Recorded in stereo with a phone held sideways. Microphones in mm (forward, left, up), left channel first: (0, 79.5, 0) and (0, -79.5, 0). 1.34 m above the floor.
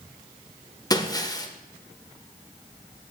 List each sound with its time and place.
0.9 s breaking glass: 25° left (ahead or behind), 1.2 m